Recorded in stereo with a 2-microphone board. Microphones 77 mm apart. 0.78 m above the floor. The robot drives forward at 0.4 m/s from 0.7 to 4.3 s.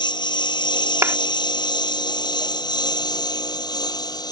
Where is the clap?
40° right (ahead or behind).